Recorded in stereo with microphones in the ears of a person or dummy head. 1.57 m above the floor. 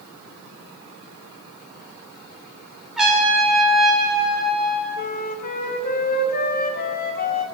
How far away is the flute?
About 0.9 m.